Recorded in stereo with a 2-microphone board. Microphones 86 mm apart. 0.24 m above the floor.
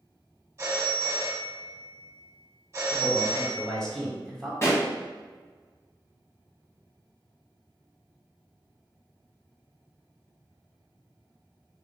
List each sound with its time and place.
0.6 s a phone ringing: 30° right (ahead or behind), 1.2 m
2.9 s a man speaking: 10° left (ahead or behind), 1.2 m
4.6 s a pop: 35° left (ahead or behind), 1.5 m